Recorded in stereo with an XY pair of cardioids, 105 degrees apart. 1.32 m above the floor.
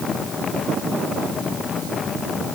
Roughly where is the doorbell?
No doorbell in this recording.